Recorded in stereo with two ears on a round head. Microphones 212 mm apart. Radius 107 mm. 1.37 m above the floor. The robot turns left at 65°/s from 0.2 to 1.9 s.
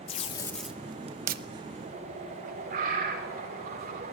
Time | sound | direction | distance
0.1 | tape being pulled | 25° left (ahead or behind) | 0.8 m
1.8 | a bird | 45° right (ahead or behind) | 4.5 m